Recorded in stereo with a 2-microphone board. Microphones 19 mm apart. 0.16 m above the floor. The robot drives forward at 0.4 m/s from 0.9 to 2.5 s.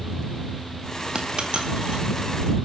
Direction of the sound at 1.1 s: 50° right (ahead or behind).